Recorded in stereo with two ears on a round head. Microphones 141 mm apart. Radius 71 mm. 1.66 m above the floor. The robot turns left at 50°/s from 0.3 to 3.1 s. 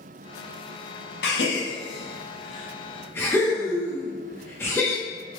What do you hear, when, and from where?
1.2 s a gasp: 70° left (ahead or behind), 0.6 m; by 5.0 s 15° left (ahead or behind), 0.6 m